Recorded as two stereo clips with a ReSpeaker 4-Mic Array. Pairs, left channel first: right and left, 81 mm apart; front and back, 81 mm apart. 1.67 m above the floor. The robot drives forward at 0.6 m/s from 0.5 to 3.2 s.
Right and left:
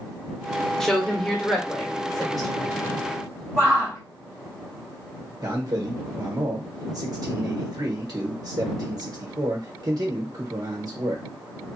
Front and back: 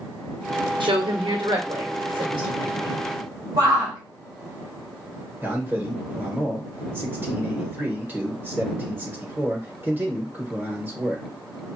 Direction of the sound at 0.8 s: 175° right.